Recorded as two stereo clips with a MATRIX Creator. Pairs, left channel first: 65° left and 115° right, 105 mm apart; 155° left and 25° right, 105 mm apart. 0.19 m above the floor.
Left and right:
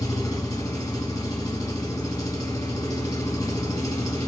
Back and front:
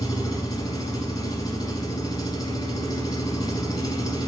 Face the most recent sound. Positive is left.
turn(degrees=120)